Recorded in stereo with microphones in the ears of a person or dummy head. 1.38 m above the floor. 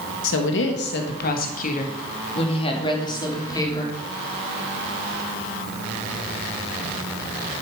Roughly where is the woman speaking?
Left.